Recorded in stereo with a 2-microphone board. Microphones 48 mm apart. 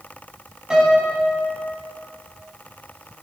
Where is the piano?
15° right (ahead or behind), 2.5 m.